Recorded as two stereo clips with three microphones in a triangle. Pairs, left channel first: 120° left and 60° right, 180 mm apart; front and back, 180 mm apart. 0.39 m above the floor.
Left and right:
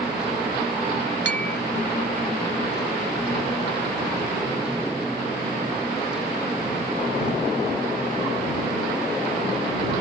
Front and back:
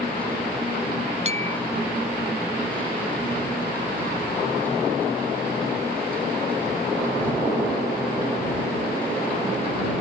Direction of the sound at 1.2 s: 130° left.